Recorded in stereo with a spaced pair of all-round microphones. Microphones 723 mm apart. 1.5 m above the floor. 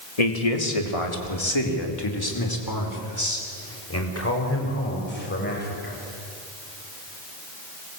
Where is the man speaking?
60° left (ahead or behind), 2.5 m; by 5.9 s 15° left (ahead or behind), 6.5 m.